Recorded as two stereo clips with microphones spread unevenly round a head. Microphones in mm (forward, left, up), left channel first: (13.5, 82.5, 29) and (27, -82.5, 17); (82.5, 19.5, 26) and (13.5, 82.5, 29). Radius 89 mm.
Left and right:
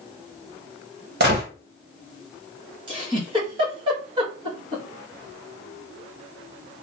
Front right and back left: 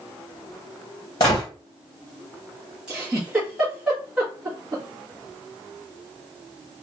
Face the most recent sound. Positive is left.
turn(degrees=-140)